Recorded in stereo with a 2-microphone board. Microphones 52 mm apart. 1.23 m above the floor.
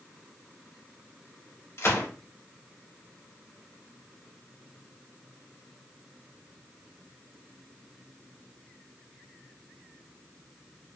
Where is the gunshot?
60° left (ahead or behind), 0.9 m.